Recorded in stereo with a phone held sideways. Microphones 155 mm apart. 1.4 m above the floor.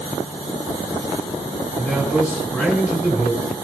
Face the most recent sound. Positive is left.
turn(degrees=10)  # may be behind; listen again after turning